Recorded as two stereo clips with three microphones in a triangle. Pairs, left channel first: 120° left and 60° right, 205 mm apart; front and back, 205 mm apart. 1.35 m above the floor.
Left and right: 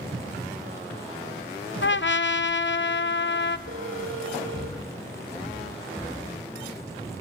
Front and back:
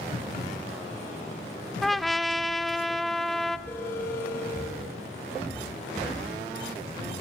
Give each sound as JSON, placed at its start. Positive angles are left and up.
{"t": 1.8, "sound": "a trumpet", "azimuth_deg": 90, "distance_m": 0.7}
{"t": 3.7, "sound": "a phone ringing", "azimuth_deg": -80, "distance_m": 3.0}